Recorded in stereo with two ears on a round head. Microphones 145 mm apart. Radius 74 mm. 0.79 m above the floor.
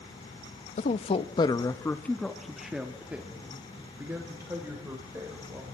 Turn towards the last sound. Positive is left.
turn(degrees=-15)  # may be behind; listen again after turning